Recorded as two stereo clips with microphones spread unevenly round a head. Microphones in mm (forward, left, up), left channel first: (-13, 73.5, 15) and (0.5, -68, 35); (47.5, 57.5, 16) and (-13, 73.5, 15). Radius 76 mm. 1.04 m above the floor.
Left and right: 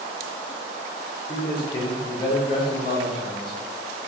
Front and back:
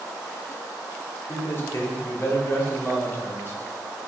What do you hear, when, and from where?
1.3 s a man speaking: 35° left, 3 m